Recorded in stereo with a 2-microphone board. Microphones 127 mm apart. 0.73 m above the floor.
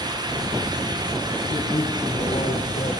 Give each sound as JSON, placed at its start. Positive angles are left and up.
{"t": 1.5, "sound": "a man speaking", "side_deg": 45, "distance_m": 6.5}